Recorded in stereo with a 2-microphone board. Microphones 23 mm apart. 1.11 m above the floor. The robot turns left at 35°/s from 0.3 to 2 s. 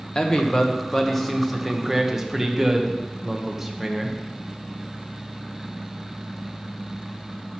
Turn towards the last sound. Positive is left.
turn(degrees=-15)